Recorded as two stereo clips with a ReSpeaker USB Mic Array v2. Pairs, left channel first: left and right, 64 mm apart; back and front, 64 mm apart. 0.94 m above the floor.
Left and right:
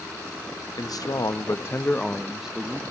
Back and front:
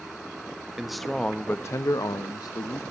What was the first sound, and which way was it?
A man speaking, 80° left.